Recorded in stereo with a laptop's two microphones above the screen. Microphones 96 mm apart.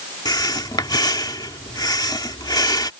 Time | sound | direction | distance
0.2 | breathing | 45° left (ahead or behind) | ?